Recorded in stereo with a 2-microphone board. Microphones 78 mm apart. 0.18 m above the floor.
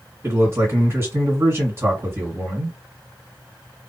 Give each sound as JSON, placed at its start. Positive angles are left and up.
{"t": 0.2, "sound": "a man speaking", "side_deg": -30, "distance_m": 2.5}